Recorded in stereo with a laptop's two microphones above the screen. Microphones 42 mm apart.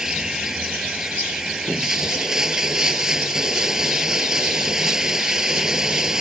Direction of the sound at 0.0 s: 15° right (ahead or behind).